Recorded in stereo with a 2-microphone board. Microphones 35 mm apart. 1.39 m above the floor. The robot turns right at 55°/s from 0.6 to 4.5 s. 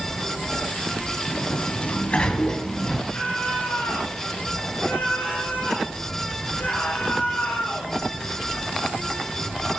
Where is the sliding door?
85° left, 1.9 m; by 3.0 s straight behind, 1.9 m.